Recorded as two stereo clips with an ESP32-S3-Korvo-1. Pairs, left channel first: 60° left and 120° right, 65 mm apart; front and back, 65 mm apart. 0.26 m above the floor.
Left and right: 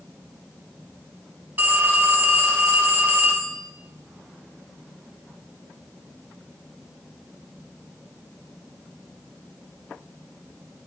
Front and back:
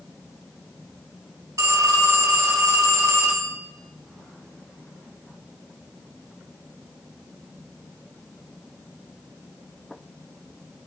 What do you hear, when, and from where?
1.6 s a phone ringing: 175° right, 1.3 m